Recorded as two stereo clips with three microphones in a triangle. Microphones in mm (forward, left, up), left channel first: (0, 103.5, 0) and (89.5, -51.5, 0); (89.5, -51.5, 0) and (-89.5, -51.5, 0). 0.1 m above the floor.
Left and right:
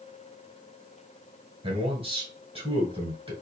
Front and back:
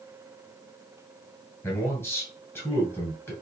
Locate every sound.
1.6 s a man speaking: 65° right, 1.3 m